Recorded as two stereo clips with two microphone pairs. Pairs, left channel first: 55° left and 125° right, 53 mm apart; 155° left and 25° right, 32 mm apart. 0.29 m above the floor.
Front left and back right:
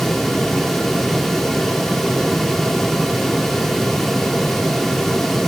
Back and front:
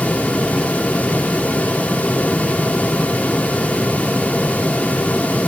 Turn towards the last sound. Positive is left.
No sound to turn to.